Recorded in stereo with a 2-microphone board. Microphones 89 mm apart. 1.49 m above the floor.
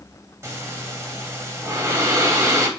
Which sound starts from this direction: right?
Breathing, at 0.4 s.